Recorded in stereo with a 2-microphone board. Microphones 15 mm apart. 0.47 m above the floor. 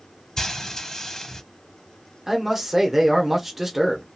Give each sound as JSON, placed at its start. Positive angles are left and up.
{"t": 0.4, "sound": "frying", "side_deg": 35, "distance_m": 1.0}
{"t": 2.3, "sound": "a man speaking", "side_deg": -20, "distance_m": 1.0}